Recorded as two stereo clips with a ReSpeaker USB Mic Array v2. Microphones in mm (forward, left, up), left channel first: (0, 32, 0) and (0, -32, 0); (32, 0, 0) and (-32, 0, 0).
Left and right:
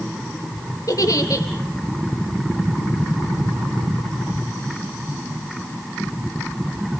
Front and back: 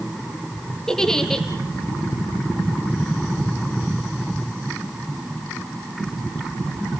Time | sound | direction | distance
0.9 | a giggle | 80° left | 2.5 m